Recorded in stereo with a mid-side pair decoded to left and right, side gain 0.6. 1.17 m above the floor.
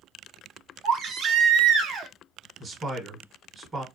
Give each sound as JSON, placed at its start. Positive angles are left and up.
{"t": 0.8, "sound": "a baby crying", "azimuth_deg": -55, "distance_m": 0.7}
{"t": 2.6, "sound": "a man speaking", "azimuth_deg": -20, "distance_m": 1.0}